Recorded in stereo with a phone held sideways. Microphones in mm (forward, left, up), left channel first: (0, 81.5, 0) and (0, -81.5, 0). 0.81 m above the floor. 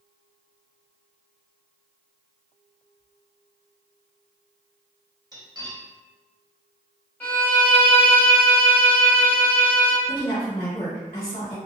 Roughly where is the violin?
Centre.